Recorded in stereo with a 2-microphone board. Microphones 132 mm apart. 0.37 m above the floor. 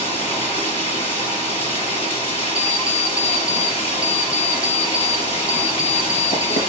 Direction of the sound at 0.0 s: 50° left (ahead or behind).